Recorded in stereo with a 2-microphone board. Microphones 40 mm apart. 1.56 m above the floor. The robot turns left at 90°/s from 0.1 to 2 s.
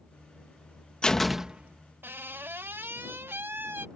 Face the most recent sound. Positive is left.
turn(degrees=-60)  # may be behind; listen again after turning